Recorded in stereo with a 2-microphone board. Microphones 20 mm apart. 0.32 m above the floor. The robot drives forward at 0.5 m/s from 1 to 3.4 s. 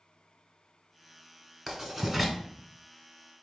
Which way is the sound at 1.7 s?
5° right (ahead or behind).